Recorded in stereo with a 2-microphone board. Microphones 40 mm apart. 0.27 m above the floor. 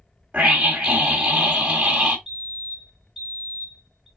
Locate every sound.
0.3 s a scream: 30° right (ahead or behind), 1.7 m
2.3 s a fire alarm: 5° right (ahead or behind), 3.5 m